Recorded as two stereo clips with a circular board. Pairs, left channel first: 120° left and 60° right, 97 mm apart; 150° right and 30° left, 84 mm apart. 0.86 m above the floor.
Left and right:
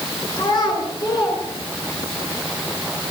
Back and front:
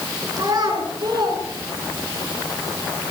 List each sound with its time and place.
0.4 s a child speaking: 75° left, 8.5 m; by 2.2 s 70° left, 9.5 m